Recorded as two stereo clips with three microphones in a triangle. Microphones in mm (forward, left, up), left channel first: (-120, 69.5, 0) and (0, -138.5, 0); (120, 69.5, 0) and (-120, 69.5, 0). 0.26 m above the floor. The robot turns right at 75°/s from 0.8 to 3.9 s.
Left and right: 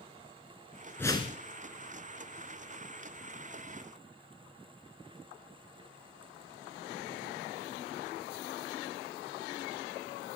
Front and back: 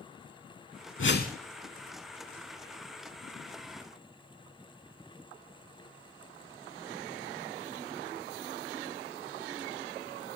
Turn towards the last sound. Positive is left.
turn(degrees=-105)